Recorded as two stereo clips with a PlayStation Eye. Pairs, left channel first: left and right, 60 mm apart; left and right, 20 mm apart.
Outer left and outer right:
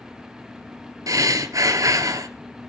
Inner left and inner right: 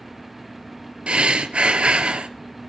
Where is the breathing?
75° right (ahead or behind), 1.1 m.